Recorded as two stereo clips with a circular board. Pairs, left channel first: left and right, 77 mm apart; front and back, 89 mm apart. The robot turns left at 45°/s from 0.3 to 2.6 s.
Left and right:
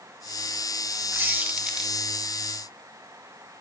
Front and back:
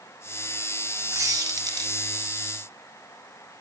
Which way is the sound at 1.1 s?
140° right.